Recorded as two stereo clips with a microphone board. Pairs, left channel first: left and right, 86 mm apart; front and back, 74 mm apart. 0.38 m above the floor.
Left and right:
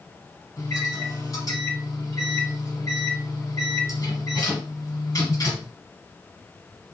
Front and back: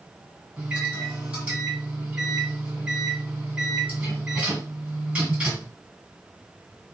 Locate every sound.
0.6 s a microwave: 115° left, 1.5 m